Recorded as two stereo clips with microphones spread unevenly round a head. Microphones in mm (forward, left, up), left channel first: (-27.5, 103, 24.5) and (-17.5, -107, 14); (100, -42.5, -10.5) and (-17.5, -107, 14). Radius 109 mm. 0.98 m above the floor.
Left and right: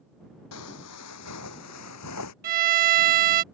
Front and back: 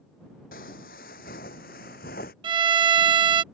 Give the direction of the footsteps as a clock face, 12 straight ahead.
9 o'clock.